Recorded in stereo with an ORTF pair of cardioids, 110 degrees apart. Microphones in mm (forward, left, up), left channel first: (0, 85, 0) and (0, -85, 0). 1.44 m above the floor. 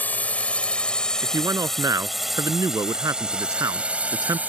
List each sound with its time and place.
0.0 s a drone: 10° left; by 4.5 s 10° right
1.2 s a man speaking: 20° right